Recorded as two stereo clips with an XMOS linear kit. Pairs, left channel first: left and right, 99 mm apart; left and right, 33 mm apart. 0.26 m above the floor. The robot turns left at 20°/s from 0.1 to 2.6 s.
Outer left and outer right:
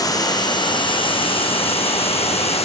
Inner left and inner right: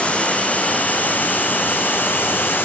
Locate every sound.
0.0 s running water: 140° left, 1.7 m; by 2.6 s 90° left, 1.7 m